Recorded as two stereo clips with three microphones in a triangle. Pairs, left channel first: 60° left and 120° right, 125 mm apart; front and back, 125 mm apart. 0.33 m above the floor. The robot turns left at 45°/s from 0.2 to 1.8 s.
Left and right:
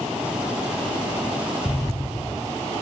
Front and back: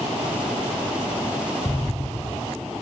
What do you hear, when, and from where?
1.6 s an explosion: 55° left, 1.4 m; by 2.5 s 50° left, 1.4 m